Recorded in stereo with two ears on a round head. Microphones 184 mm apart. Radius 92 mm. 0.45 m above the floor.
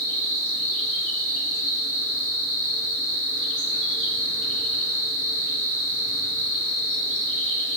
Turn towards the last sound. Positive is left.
turn(degrees=-40)  # may be behind; listen again after turning